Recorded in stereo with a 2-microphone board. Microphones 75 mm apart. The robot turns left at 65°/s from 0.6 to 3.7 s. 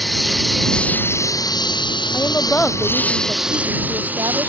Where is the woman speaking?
50° left; by 4.5 s 55° right.